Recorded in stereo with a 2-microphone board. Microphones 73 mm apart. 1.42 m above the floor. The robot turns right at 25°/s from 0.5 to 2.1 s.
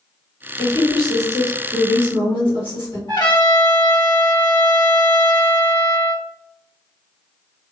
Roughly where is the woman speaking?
Ahead left.